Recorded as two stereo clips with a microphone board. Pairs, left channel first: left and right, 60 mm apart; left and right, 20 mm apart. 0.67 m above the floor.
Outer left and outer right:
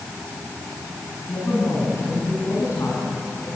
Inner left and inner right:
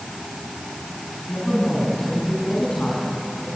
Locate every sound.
1.3 s a woman speaking: 60° left (ahead or behind), 5 m